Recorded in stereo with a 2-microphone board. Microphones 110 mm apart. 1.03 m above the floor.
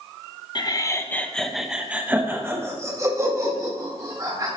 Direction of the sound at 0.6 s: 40° left (ahead or behind).